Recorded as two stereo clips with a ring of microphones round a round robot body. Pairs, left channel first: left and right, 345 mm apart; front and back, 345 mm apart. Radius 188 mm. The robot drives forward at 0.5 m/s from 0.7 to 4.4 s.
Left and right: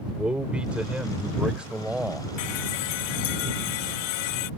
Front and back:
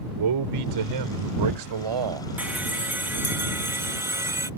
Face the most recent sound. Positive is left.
turn(degrees=100)